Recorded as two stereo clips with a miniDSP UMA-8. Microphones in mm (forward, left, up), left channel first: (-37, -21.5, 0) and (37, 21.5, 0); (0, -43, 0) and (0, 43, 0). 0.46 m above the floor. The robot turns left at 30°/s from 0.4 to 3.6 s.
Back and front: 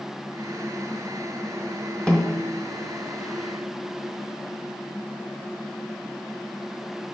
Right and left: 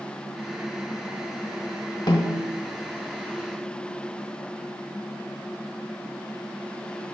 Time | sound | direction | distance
2.1 | a snare drum | 70° right | 1.1 m